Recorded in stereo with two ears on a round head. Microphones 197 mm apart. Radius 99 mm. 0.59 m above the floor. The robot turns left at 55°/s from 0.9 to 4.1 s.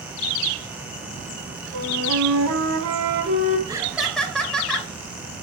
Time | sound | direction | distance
1.7 | a flute | 50° right | 3.5 m
3.7 | laughter | 20° right (ahead or behind) | 2.5 m